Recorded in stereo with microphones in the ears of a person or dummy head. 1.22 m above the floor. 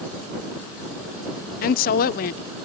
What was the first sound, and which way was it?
A woman speaking, 50° left (ahead or behind).